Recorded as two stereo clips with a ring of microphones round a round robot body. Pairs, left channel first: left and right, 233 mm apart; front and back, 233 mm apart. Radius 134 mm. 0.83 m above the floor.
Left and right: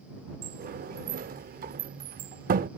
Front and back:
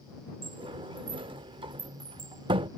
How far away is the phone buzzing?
No phone buzzing in this recording.